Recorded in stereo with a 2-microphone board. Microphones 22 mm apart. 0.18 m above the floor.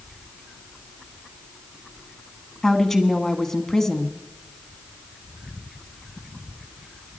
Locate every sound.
2.6 s a woman speaking: 15° left (ahead or behind), 1.3 m